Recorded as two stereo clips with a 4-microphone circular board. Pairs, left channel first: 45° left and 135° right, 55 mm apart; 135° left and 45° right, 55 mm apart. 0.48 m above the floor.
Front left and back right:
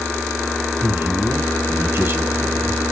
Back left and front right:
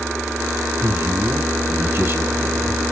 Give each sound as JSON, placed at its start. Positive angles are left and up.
{"t": 0.8, "sound": "a man speaking", "azimuth_deg": -90, "distance_m": 1.9}